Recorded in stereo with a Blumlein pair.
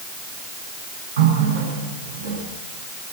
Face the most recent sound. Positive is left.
turn(degrees=-65)